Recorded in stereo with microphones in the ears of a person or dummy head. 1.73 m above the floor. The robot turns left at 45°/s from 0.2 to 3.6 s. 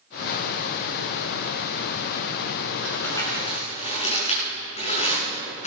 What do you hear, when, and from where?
2.8 s crumpling: 5° left (ahead or behind), 7 m; by 5.7 s 40° left (ahead or behind), 7 m